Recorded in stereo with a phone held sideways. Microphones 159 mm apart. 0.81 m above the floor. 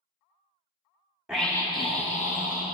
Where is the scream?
5° right (ahead or behind), 0.7 m; by 2.6 s 55° left (ahead or behind), 1.2 m.